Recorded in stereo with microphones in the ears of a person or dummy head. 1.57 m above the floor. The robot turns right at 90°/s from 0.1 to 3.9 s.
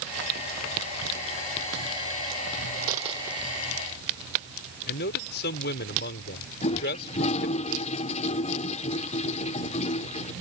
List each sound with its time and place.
2.9 s a dropped coin: 55° right (ahead or behind); by 3.5 s centre (ahead or behind)
4.9 s a man speaking: 50° left (ahead or behind)
6.6 s a toilet flushing: 30° left (ahead or behind)